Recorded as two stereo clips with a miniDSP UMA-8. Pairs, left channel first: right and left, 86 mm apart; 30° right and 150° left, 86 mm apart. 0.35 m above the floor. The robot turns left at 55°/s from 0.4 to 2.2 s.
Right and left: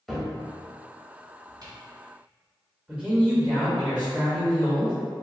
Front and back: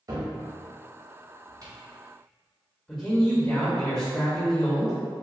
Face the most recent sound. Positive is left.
turn(degrees=45)